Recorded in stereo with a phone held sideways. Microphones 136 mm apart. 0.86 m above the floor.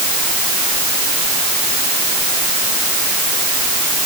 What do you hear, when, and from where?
Only background noise.